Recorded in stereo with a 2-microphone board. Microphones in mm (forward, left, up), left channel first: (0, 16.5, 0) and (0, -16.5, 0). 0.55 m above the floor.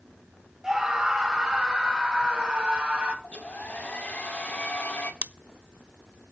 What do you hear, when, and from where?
0.6 s a scream: 25° right (ahead or behind), 3.5 m; by 3.1 s 40° right (ahead or behind), 4.5 m
3.2 s a hair dryer: 50° left (ahead or behind), 1.8 m
5.2 s scissors: 60° right (ahead or behind), 0.6 m